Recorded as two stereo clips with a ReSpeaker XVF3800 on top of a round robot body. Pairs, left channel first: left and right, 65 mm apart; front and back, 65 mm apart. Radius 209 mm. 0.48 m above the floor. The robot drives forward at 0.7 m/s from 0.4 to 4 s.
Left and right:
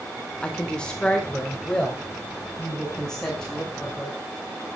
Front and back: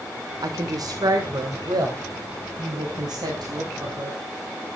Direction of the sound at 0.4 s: 165° left.